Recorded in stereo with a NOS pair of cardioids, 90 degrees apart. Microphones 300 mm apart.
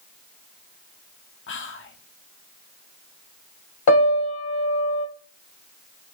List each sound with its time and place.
1.5 s whispering: 40° left, 0.8 m
3.9 s a piano: 65° left, 1.0 m